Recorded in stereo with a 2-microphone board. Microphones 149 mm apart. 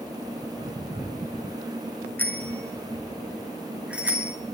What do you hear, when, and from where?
2.2 s a bicycle bell: 15° left (ahead or behind), 4 m; by 4.3 s 10° right (ahead or behind), 5.5 m